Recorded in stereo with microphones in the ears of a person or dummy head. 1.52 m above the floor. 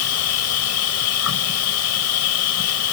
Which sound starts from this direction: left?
An insect, at 0.0 s.